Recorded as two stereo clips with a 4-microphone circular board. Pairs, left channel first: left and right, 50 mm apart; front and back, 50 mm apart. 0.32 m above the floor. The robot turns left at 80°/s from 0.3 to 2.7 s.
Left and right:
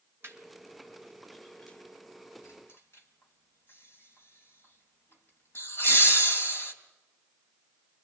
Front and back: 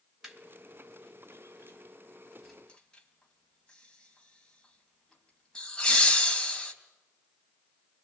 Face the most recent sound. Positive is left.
turn(degrees=70)